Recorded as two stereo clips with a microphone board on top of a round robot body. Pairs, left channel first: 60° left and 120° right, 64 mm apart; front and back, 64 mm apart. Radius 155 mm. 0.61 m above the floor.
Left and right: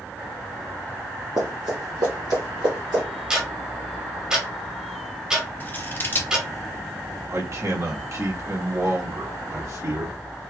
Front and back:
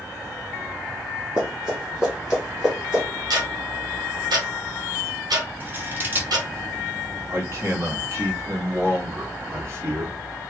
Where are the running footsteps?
115° right, 0.6 m; by 3.0 s 100° right, 1.7 m.